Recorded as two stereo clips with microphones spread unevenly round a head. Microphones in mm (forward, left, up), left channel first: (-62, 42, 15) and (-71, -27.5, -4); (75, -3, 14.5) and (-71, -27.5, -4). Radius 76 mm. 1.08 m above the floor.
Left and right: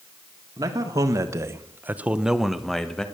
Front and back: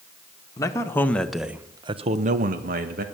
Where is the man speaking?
60° right, 1.6 m; by 3.0 s 170° left, 1.5 m.